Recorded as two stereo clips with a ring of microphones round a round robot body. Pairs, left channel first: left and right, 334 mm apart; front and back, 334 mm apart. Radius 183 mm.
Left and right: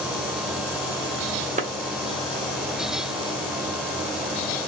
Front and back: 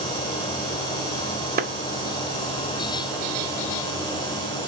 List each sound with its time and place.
1.6 s a clap: 140° right, 0.8 m